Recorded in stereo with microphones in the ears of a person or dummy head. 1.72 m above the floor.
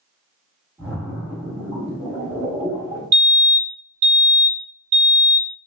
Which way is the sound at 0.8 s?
5° right (ahead or behind).